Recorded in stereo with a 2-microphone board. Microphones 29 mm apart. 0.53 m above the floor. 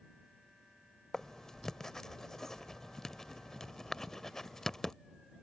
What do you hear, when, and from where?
1.1 s writing: 20° left (ahead or behind)